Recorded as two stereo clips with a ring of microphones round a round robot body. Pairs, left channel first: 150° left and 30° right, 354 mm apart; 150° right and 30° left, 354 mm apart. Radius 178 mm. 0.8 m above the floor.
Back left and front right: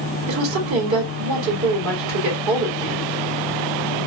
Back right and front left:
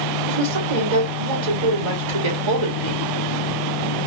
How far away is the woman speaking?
About 2.5 m.